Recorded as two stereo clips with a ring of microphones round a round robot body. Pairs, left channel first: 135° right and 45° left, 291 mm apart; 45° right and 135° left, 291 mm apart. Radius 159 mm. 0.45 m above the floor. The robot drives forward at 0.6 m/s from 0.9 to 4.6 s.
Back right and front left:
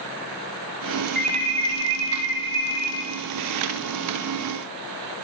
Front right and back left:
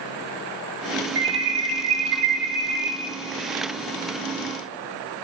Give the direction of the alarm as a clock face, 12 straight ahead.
9 o'clock.